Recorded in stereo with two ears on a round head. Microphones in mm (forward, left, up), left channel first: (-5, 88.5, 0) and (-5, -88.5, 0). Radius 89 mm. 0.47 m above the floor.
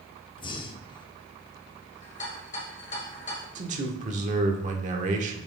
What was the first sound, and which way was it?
Breathing, 25° left (ahead or behind).